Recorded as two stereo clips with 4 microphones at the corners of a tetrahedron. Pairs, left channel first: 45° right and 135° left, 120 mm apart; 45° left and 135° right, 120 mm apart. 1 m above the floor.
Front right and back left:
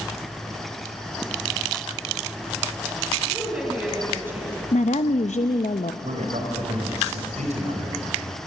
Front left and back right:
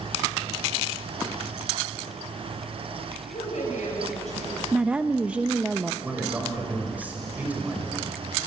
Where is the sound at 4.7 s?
55° right, 0.7 m.